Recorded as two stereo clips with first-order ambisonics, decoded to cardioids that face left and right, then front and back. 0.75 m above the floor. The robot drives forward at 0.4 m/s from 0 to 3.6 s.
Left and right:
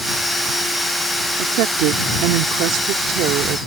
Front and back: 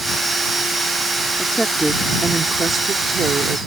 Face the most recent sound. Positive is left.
turn(degrees=-115)